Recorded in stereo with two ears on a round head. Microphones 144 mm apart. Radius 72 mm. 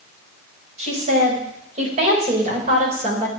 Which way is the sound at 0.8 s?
45° right (ahead or behind).